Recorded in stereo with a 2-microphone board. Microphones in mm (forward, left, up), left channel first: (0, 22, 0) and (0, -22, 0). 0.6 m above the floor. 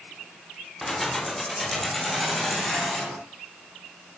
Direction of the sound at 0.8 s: 5° left (ahead or behind).